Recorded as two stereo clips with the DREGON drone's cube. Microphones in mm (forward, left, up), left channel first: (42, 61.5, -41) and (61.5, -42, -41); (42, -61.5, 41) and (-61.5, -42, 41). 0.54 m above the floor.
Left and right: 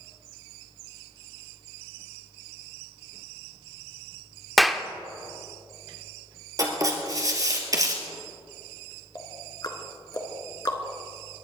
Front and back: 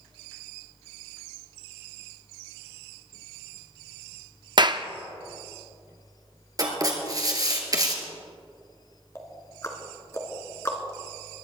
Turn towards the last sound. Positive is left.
turn(degrees=50)